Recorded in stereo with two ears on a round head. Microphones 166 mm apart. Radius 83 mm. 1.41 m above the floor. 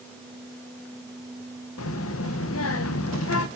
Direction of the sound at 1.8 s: 80° left.